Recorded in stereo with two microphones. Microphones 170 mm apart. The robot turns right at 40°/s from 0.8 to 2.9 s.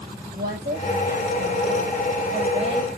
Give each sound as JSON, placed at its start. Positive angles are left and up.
{"t": 0.3, "sound": "a woman speaking", "azimuth_deg": -115, "distance_m": 5.0}